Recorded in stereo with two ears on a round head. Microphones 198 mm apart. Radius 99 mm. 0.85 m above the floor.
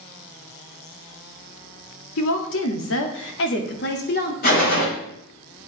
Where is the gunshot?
45° left (ahead or behind), 5 m.